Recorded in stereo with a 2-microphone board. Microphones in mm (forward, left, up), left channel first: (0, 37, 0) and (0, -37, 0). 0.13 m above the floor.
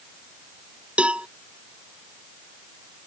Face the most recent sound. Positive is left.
turn(degrees=-15)  # may be behind; listen again after turning